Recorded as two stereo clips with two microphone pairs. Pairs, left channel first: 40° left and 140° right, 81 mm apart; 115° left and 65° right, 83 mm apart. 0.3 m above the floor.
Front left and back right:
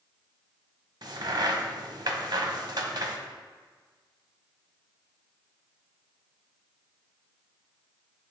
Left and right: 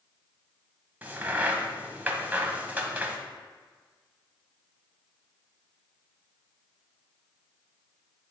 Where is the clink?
I don't hear a clink.